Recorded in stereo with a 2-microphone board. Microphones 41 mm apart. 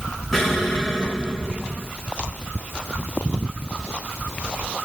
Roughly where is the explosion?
Centre.